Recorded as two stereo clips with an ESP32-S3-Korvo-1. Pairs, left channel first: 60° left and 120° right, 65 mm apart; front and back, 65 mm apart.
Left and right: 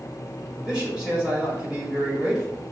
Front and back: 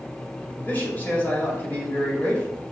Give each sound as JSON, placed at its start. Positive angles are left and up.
{"t": 0.6, "sound": "a man speaking", "azimuth_deg": -50, "distance_m": 1.7}